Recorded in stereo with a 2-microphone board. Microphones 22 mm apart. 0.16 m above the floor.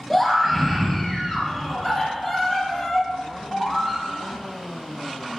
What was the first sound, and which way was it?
A scream, 5° right (ahead or behind).